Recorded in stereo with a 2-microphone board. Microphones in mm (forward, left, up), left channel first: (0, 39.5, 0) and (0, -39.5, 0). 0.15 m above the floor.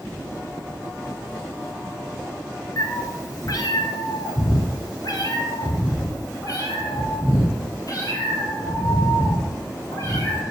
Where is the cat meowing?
45° left (ahead or behind), 1.3 m.